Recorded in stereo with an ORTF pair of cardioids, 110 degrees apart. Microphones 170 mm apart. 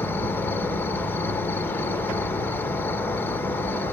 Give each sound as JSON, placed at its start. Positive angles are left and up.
{"t": 0.0, "sound": "an insect", "azimuth_deg": 10, "distance_m": 0.8}